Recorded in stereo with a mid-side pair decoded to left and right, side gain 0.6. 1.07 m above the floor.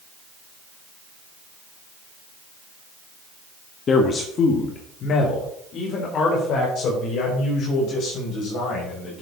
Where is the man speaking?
40° left, 1.5 m; by 9.2 s 55° left, 6 m.